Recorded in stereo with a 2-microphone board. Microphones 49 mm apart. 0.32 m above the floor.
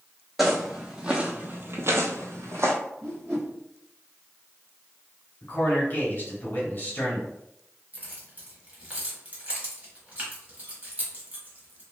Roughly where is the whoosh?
Right.